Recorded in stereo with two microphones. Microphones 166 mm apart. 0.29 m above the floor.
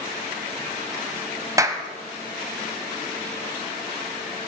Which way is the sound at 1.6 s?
20° right (ahead or behind).